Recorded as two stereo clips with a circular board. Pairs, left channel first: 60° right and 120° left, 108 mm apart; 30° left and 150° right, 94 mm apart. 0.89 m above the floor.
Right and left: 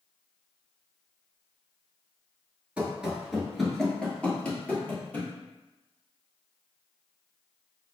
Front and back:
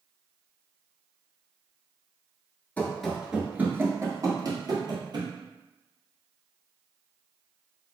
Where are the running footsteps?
60° left, 0.9 m; by 5.3 s 130° right, 1.5 m.